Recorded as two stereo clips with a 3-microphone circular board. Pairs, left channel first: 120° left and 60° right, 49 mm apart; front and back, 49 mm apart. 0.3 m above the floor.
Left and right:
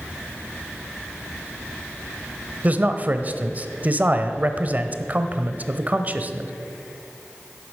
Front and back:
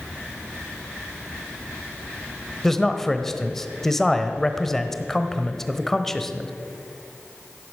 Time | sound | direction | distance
2.6 | a man speaking | 80° right | 1.0 m